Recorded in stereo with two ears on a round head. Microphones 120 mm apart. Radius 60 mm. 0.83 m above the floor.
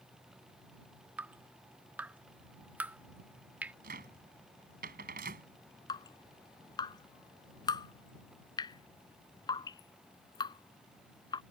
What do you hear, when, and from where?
1.2 s dripping: 10° right (ahead or behind)
3.8 s a cupboard door: 75° right (ahead or behind)
5.9 s dripping: 30° left (ahead or behind)